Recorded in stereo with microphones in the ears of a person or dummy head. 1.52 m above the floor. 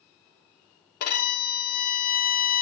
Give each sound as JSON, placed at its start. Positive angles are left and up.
{"t": 1.0, "sound": "a violin", "side_deg": 50, "distance_m": 1.0}